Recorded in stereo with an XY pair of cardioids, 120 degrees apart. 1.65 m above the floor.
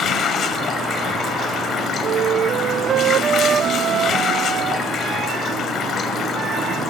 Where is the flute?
50° right, 0.5 m.